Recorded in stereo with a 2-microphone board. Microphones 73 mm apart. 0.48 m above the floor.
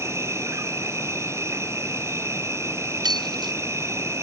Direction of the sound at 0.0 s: 40° right (ahead or behind).